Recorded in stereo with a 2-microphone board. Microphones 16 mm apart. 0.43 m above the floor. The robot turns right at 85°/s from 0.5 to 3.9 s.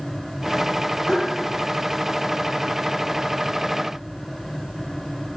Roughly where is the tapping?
Left.